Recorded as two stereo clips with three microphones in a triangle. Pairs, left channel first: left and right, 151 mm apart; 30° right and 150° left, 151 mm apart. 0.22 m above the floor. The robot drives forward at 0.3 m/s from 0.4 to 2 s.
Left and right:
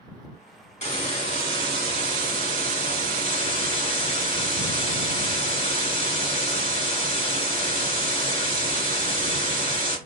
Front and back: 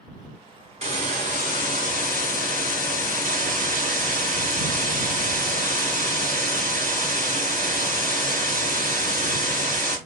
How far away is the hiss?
About 1.3 m.